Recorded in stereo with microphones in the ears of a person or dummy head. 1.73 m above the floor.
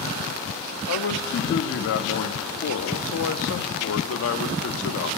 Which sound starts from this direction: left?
A man speaking, at 0.9 s.